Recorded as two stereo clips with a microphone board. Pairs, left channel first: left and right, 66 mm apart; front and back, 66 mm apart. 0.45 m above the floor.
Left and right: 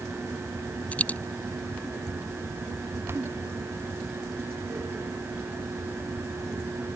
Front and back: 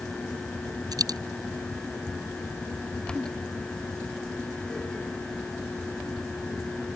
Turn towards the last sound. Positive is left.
turn(degrees=160)